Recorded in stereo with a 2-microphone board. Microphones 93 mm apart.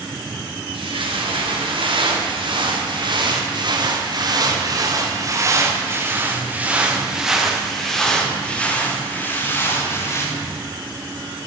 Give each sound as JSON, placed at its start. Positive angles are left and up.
{"t": 0.7, "sound": "footsteps", "side_deg": -70, "distance_m": 5.0}